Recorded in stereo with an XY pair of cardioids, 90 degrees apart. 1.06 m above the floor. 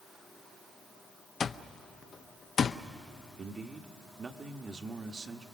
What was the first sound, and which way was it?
An alarm clock, 50° left.